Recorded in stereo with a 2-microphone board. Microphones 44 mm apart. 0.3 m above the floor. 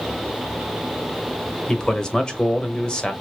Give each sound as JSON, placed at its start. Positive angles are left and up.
{"t": 1.7, "sound": "a man speaking", "side_deg": 15, "distance_m": 0.9}